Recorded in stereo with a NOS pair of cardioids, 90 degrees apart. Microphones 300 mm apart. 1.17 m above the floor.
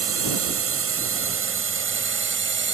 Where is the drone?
50° right; by 2.7 s 40° right.